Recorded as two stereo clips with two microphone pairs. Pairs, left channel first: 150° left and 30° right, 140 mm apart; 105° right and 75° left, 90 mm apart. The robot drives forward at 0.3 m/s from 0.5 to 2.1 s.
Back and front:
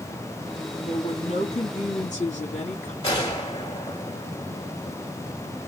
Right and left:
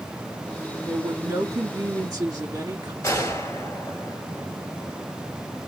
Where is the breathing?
No breathing in this recording.